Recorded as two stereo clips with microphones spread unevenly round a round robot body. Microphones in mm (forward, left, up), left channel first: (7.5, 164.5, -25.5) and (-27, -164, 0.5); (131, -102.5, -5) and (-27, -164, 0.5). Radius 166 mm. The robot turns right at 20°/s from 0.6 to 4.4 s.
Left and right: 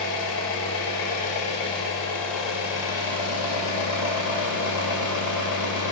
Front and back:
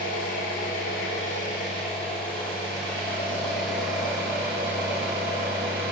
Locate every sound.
0.0 s an engine running: 45° left, 2.0 m; by 5.9 s 125° left, 2.0 m